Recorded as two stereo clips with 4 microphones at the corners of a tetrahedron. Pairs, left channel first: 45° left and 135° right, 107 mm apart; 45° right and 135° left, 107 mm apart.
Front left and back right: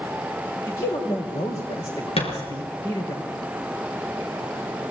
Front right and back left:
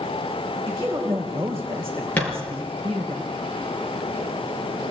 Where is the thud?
30° left, 6.5 m.